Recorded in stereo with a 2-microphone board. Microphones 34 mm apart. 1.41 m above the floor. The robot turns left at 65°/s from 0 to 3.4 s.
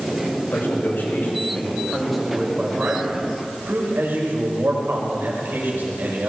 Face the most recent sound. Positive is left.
turn(degrees=-80)